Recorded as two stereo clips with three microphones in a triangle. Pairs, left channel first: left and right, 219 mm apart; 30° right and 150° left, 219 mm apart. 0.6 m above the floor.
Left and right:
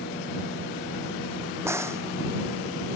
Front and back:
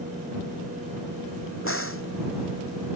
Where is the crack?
10° right.